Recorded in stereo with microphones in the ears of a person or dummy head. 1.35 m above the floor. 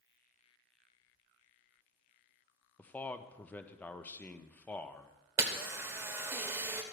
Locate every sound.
2.8 s a man speaking: 5° left (ahead or behind), 0.7 m
5.4 s a camera shutter: 20° right (ahead or behind), 1.2 m